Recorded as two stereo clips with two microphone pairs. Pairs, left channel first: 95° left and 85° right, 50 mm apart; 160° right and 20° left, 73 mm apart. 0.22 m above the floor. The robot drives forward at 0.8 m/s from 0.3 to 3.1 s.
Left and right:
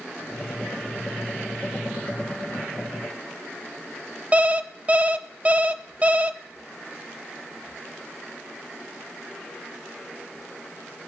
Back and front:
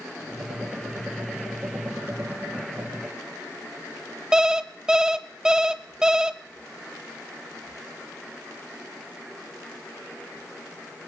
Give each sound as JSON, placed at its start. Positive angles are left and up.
{"t": 4.3, "sound": "an alarm clock", "azimuth_deg": -55, "distance_m": 0.7}